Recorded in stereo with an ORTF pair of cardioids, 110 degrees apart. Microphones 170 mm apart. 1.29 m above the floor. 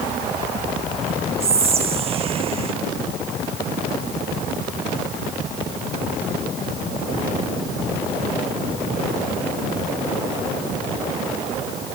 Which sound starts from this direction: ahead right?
Whispering, at 1.4 s.